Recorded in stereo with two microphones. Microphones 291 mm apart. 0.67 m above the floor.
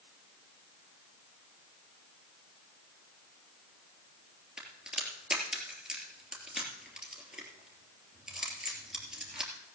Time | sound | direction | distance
4.6 | a crack | centre (ahead or behind) | 3 m